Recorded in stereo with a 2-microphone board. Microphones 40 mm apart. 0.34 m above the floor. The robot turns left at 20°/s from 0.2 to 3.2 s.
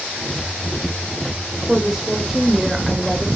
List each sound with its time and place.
1.7 s a woman speaking: 10° right (ahead or behind), 1.3 m; by 3.3 s centre (ahead or behind), 1.3 m